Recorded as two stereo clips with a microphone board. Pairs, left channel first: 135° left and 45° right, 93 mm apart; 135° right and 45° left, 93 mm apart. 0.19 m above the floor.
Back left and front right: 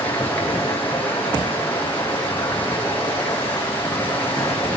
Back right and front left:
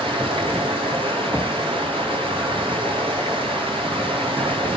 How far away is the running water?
About 9 m.